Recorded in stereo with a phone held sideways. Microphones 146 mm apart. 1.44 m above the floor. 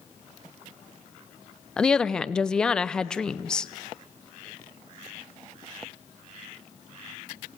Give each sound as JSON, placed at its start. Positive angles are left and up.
{"t": 1.8, "sound": "a woman speaking", "side_deg": 5, "distance_m": 0.8}